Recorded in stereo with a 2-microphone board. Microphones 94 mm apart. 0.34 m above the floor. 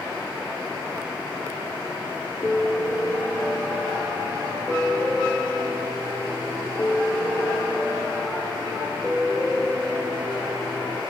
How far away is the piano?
About 3.5 m.